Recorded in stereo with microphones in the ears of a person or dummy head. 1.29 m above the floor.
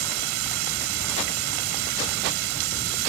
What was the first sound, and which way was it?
Running water, 75° right (ahead or behind).